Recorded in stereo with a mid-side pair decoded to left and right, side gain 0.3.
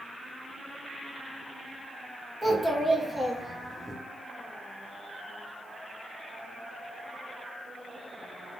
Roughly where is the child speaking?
Ahead.